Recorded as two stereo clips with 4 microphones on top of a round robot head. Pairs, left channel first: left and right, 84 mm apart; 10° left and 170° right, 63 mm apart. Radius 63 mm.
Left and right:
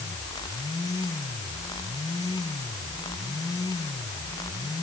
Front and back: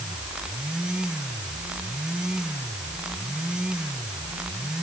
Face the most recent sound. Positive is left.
No sound to turn to.